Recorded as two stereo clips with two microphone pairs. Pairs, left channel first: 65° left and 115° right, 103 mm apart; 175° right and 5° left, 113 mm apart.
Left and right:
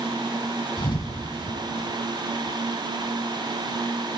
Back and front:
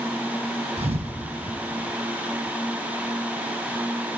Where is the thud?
20° left, 0.9 m.